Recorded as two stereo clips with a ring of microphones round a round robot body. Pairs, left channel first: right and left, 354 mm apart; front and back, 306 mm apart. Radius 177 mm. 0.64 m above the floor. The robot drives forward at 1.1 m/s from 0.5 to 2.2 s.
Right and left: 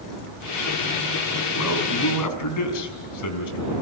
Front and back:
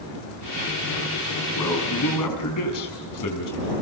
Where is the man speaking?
40° right, 5.5 m; by 3.7 s 45° right, 5 m.